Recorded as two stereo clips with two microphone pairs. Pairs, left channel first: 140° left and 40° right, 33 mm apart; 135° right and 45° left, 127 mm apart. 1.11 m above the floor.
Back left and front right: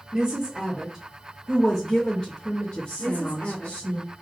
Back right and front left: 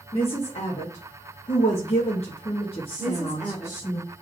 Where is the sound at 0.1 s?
95° right, 1.2 m; by 4.0 s 165° left, 1.6 m.